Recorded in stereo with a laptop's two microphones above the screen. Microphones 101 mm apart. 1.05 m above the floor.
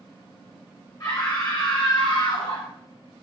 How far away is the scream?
About 3 m.